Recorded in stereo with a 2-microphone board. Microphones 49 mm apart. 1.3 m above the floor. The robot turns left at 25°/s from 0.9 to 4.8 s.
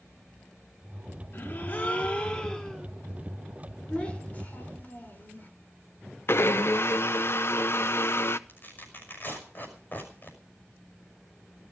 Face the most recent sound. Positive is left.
turn(degrees=45)  # may be behind; listen again after turning